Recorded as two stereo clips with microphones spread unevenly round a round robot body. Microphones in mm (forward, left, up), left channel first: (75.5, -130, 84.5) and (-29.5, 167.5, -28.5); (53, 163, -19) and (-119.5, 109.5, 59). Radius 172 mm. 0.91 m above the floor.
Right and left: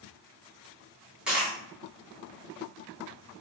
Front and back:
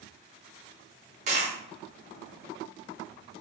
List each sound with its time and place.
1.3 s a dropped coin: 150° right, 0.8 m